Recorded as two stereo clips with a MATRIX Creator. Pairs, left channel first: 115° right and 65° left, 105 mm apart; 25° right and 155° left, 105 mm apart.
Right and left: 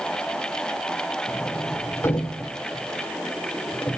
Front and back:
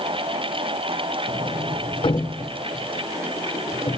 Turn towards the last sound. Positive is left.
turn(degrees=-50)